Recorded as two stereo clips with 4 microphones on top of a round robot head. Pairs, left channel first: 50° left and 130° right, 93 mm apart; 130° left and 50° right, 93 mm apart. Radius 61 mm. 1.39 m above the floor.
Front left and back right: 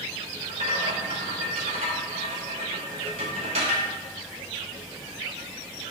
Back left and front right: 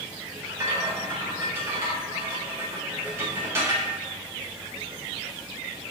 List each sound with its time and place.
0.4 s a rattle: 110° right, 0.6 m